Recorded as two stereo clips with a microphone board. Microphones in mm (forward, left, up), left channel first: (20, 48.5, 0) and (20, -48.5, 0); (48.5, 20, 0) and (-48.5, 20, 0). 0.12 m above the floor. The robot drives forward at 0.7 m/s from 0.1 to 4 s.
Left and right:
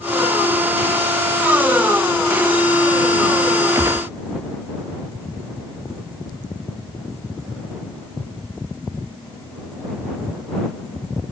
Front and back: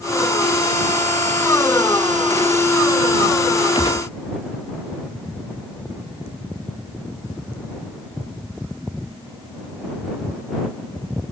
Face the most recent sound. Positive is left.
turn(degrees=-35)